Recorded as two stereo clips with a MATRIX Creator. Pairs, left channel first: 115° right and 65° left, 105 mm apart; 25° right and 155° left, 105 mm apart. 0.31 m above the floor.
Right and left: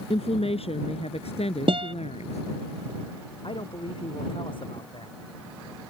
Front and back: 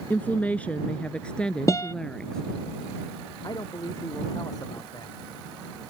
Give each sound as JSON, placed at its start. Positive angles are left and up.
{"t": 0.1, "sound": "a woman speaking", "azimuth_deg": -95}
{"t": 1.7, "sound": "a guitar", "azimuth_deg": 35}
{"t": 3.4, "sound": "a man speaking", "azimuth_deg": -75}